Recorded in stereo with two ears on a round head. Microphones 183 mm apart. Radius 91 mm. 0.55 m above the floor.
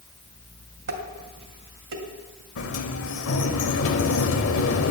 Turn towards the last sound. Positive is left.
turn(degrees=70)  # may be behind; listen again after turning